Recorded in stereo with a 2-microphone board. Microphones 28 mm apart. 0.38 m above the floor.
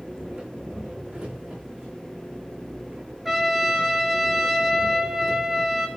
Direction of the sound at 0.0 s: 35° right (ahead or behind).